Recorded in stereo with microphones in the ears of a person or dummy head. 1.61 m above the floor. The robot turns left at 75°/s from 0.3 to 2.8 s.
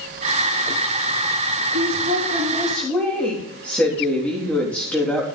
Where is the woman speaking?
105° right, 3 m; by 5.3 s 175° left, 3 m.